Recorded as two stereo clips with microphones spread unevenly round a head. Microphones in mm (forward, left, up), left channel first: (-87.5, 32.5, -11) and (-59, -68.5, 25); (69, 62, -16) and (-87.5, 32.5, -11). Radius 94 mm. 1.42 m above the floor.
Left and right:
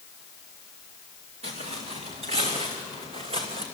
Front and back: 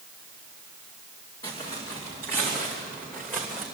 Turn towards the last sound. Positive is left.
turn(degrees=-80)